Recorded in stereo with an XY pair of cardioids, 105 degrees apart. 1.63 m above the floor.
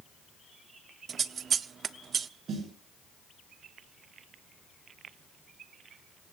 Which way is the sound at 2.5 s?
55° right.